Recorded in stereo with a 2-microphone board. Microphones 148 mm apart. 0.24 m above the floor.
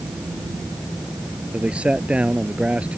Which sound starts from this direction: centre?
A man speaking, at 1.5 s.